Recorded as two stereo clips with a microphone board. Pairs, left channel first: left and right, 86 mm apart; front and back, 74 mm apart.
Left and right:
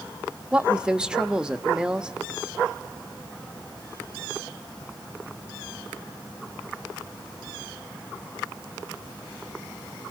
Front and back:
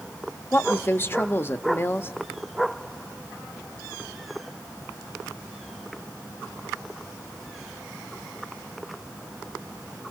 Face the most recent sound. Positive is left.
turn(degrees=-20)